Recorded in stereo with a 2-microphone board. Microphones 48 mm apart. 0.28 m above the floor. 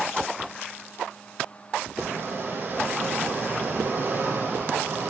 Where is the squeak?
40° right (ahead or behind), 3.5 m.